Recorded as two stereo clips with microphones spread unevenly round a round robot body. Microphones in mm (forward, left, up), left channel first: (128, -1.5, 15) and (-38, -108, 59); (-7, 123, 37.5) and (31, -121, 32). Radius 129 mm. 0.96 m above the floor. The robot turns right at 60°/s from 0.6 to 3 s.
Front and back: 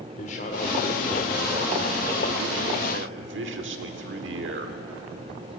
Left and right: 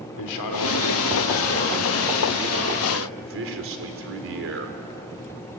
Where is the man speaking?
95° left, 2.5 m; by 4.8 s 120° right, 2.5 m.